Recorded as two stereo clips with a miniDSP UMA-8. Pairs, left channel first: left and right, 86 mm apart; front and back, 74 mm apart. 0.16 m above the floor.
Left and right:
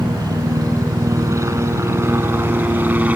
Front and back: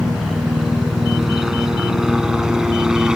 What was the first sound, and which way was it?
A helicopter, 95° right.